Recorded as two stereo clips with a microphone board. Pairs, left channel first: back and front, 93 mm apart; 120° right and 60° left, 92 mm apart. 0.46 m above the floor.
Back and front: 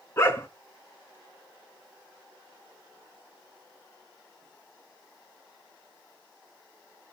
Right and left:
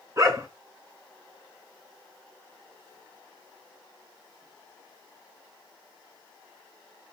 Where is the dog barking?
120° left, 2 m.